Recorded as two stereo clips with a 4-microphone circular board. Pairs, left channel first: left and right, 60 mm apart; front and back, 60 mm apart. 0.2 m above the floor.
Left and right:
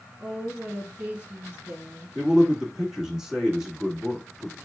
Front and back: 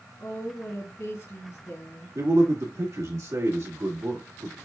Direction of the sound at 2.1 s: 170° right.